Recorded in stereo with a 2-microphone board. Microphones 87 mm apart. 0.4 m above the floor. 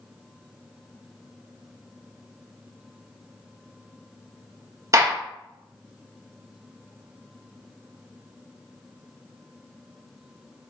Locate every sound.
4.9 s a gunshot: 40° right (ahead or behind), 0.6 m